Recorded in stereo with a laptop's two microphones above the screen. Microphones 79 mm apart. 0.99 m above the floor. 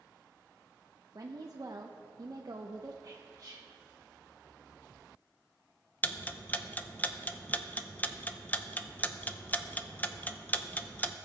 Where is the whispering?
40° right (ahead or behind), 0.9 m.